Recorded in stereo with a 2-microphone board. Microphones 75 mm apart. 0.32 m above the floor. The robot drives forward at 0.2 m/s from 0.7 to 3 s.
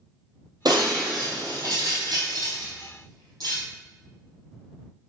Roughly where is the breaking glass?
Right.